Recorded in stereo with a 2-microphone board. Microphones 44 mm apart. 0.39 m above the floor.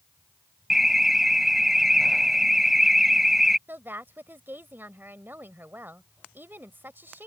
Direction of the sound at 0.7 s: 5° right (ahead or behind).